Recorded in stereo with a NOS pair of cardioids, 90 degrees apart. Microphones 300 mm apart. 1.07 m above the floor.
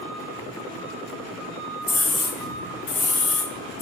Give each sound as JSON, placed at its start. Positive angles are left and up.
{"t": 1.8, "sound": "a scream", "azimuth_deg": 25, "distance_m": 2.5}